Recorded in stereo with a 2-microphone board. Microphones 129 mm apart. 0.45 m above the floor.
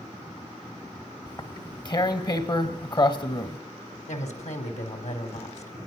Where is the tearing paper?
35° left (ahead or behind), 1.3 m.